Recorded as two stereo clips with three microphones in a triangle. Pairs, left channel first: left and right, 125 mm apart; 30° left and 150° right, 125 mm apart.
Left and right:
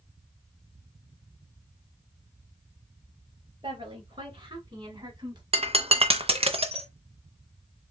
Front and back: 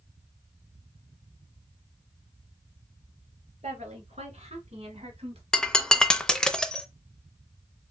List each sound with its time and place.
3.6 s a woman speaking: 130° right, 2.5 m
5.5 s breaking glass: 55° right, 0.6 m